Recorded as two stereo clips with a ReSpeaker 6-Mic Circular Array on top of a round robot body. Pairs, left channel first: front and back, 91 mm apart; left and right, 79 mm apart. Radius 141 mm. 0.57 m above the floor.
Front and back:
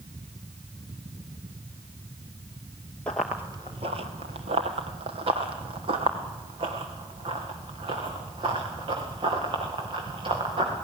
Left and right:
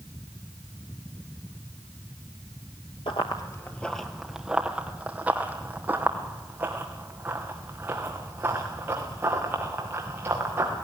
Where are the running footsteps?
75° left, 0.6 m; by 10.8 s 155° right, 5 m.